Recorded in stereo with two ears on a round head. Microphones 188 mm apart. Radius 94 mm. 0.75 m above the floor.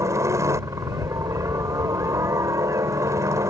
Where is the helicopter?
15° right (ahead or behind).